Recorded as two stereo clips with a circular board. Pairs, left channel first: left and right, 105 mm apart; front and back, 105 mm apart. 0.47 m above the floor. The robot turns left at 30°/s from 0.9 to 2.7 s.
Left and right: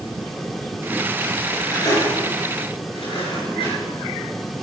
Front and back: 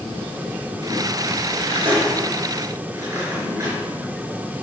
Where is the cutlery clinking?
160° left, 4.5 m; by 3.8 s 120° left, 4.5 m.